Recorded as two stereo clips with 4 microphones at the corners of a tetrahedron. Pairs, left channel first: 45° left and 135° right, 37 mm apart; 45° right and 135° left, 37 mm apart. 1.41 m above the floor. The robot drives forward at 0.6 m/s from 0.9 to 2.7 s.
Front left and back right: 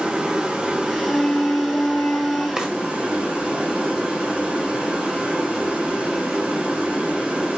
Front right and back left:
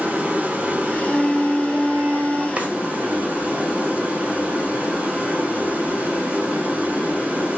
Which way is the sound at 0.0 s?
175° left.